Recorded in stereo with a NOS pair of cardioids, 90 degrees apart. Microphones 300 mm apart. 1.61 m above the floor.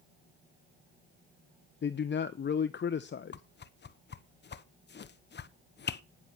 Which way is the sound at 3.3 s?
35° left.